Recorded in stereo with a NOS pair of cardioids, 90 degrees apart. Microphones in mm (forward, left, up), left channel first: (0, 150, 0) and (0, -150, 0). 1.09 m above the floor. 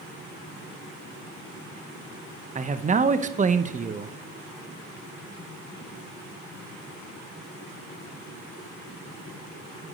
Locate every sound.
2.5 s a man speaking: 25° right, 0.8 m